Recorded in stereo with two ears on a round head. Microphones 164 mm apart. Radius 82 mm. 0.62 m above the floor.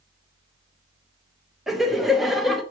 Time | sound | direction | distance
1.7 | laughter | centre (ahead or behind) | 0.8 m